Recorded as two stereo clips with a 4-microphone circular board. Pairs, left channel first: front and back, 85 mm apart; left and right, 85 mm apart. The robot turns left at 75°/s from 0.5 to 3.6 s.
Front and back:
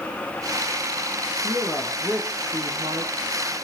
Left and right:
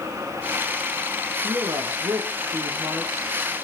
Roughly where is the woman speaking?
Ahead right.